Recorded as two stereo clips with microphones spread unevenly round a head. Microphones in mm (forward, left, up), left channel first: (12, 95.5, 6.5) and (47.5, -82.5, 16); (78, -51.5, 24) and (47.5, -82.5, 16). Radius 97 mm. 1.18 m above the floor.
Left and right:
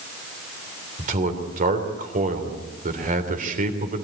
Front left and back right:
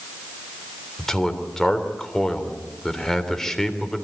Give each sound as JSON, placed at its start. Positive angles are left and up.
{"t": 1.0, "sound": "a man speaking", "azimuth_deg": -35, "distance_m": 3.5}